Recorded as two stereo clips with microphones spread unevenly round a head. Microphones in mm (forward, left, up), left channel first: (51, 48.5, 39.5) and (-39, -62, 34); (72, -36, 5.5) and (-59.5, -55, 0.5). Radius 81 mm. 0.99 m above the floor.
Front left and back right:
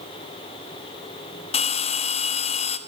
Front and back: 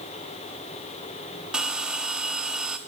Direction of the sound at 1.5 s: 105° left.